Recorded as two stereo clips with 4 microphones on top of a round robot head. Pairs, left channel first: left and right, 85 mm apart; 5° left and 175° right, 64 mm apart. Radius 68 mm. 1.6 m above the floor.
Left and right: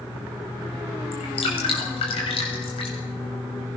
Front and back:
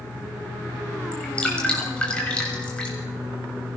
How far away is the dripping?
About 7 m.